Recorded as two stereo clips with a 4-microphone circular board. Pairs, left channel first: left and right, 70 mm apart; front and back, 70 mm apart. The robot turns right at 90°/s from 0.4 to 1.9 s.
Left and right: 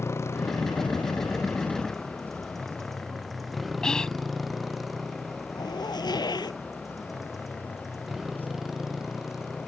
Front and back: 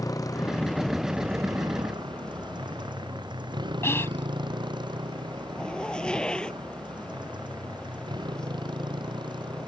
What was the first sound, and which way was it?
A motorcycle, 40° left.